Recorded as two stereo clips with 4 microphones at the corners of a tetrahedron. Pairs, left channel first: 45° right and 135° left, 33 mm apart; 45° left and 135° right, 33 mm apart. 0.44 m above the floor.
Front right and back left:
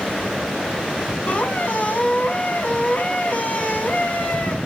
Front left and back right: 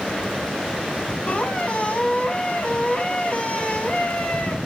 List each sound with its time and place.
1.3 s a squeak: 5° right, 1.8 m